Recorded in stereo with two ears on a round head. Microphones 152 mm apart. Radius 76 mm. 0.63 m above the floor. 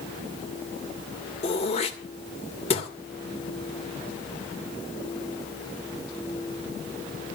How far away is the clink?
I don't hear a clink.